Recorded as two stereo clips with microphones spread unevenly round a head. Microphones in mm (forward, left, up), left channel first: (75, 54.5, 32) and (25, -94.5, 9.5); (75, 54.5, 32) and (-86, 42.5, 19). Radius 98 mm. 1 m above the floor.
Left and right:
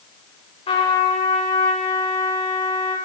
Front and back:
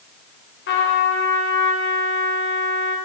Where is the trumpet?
15° left, 3.5 m.